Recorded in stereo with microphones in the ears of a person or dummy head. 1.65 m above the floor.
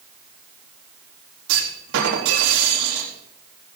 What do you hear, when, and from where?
1.5 s a clunk: 75° right (ahead or behind), 4 m